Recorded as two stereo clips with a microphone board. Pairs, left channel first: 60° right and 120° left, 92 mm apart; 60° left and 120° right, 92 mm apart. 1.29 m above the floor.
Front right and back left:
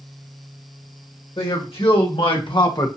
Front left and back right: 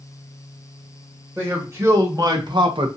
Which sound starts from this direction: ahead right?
A man speaking, at 1.4 s.